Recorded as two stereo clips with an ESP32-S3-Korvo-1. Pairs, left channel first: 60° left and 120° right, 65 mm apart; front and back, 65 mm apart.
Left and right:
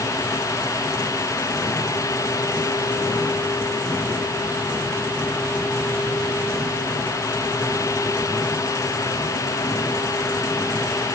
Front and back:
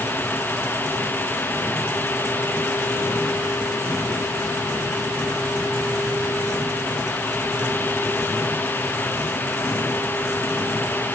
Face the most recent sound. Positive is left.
No sound to turn to.